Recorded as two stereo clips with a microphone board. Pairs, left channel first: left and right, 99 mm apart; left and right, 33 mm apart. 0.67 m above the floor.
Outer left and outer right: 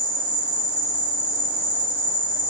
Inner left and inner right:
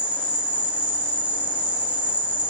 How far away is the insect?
About 0.9 m.